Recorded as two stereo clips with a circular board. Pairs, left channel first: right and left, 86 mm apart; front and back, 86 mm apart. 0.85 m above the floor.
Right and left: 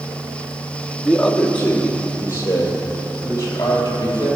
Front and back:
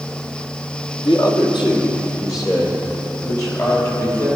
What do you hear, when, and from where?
1.0 s a man speaking: 5° right, 1.6 m; by 4.2 s 45° right, 3.5 m